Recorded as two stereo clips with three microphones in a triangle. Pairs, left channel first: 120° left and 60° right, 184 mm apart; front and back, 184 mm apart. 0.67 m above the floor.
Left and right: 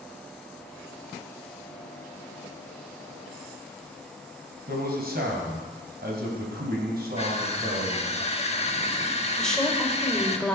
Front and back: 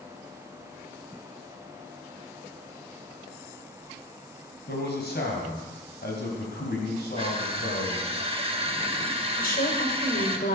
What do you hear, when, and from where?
4.7 s a man speaking: 25° right, 4 m
7.2 s crushing: 145° left, 1.3 m
9.4 s a woman speaking: 35° left, 2.5 m